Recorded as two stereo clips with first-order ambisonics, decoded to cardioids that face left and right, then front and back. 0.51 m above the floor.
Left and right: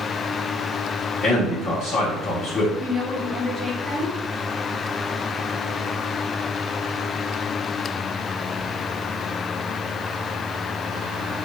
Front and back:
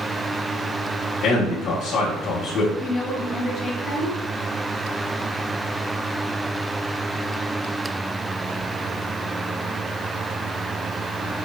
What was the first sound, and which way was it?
A man speaking, 35° left.